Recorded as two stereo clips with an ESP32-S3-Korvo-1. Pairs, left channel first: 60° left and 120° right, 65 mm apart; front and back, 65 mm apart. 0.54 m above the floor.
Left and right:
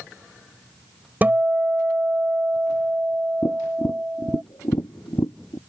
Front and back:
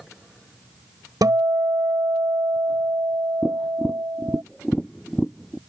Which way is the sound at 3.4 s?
85° left.